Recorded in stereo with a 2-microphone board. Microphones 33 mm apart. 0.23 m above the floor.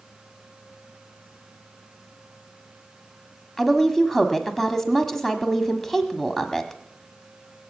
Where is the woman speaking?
10° left (ahead or behind), 1.2 m.